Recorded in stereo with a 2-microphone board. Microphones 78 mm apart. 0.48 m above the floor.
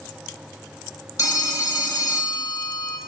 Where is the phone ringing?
45° left (ahead or behind), 1.5 m.